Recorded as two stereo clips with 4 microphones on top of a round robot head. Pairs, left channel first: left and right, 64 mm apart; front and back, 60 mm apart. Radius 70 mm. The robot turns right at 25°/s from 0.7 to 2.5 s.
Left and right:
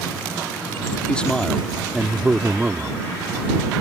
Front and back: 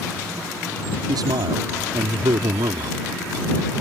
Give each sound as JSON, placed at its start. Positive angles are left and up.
{"t": 1.1, "sound": "a man speaking", "azimuth_deg": 165}